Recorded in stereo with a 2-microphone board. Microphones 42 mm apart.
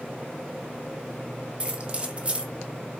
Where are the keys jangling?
30° right (ahead or behind), 0.8 m.